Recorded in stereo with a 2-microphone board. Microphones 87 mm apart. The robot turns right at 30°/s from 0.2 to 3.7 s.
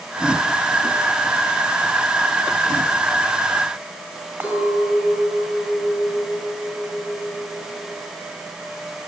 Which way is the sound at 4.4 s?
15° right (ahead or behind).